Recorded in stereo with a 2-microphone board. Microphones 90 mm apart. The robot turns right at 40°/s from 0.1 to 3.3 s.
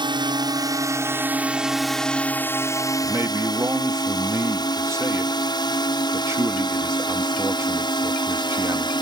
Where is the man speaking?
25° right (ahead or behind); by 8.9 s 35° right (ahead or behind).